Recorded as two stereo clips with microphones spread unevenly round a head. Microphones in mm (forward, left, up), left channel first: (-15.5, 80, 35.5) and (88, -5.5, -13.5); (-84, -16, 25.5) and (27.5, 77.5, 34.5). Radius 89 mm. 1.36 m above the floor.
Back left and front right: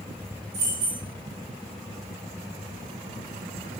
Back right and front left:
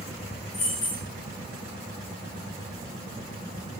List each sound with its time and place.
0.5 s keys jangling: 90° right, 0.7 m